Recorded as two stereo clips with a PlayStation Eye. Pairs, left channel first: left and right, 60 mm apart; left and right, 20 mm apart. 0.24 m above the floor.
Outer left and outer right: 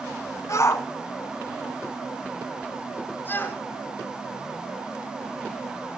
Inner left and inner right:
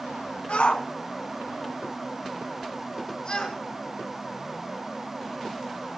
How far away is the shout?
About 2.0 m.